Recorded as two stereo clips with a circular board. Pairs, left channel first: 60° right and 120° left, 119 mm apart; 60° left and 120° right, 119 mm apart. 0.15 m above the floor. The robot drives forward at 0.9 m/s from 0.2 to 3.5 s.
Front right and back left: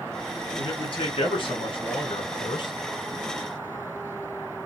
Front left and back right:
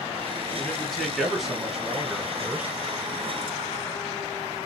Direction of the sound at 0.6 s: 25° right.